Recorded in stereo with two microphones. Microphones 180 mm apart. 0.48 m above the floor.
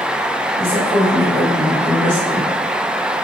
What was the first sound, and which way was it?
A woman speaking, 15° right (ahead or behind).